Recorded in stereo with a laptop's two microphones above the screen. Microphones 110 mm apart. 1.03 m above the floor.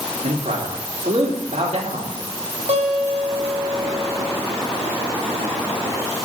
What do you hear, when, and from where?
0.2 s a man speaking: 80° right, 3 m
2.7 s a guitar: 85° right, 3 m